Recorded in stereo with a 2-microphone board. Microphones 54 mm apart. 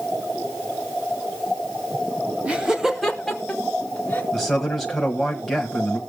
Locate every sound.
2.5 s laughter: 25° right (ahead or behind), 1.2 m; by 4.2 s 30° left (ahead or behind), 1.6 m
4.3 s a man speaking: centre (ahead or behind), 1.3 m